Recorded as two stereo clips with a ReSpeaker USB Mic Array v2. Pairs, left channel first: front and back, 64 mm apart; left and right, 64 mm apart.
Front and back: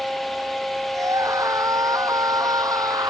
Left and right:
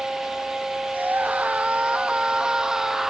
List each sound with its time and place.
0.9 s a scream: 155° right; by 3.1 s 175° right